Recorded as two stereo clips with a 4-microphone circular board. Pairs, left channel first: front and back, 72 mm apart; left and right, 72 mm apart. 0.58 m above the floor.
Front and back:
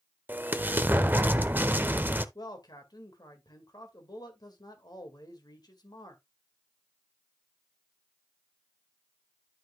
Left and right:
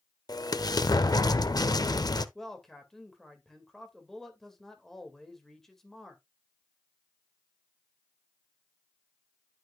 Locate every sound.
0.3 s an explosion: 115° left, 0.7 m
2.4 s a man speaking: 5° left, 2 m